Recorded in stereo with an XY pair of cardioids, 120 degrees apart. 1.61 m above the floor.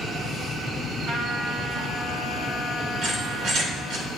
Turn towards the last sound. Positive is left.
turn(degrees=-70)